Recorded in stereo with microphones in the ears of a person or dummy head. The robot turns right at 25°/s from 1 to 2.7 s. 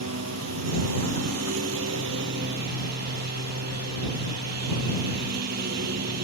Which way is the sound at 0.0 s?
100° right.